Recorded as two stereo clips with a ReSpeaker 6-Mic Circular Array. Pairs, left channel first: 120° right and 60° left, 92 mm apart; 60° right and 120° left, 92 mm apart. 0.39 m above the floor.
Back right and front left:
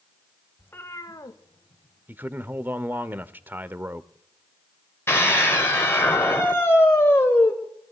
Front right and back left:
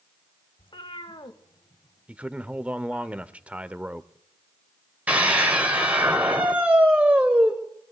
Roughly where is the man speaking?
Left.